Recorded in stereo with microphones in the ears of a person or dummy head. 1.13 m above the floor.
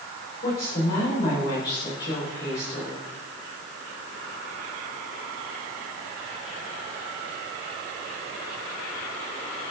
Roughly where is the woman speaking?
Left.